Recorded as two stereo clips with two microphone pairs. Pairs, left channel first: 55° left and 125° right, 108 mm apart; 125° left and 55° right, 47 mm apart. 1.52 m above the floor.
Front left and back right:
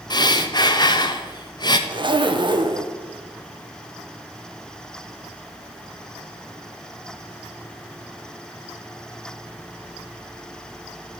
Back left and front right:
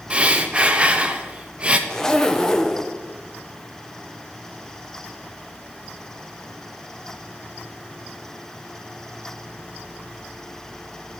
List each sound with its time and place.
0.1 s breathing: 10° left, 0.6 m
1.9 s a zipper: 160° right, 0.7 m